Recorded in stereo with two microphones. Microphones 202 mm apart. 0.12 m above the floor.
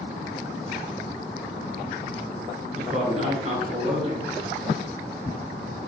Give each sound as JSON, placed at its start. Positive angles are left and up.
{"t": 2.8, "sound": "a man speaking", "side_deg": -35, "distance_m": 1.3}